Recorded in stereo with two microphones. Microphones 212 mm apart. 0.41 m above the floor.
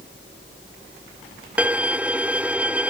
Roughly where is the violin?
Centre.